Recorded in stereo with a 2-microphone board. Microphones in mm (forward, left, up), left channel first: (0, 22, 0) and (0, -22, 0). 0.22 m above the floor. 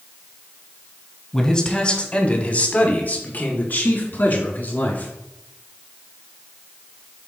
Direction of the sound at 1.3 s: 15° left (ahead or behind).